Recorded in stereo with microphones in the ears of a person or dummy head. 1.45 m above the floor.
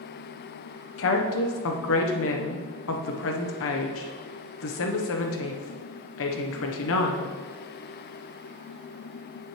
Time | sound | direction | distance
1.0 | a woman speaking | 70° left (ahead or behind) | 1.1 m